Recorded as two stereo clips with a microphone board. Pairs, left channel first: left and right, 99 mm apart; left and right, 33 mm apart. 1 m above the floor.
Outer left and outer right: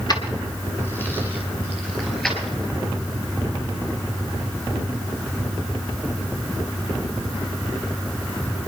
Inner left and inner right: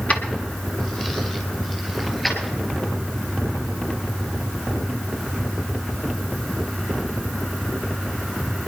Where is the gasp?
No gasp in this recording.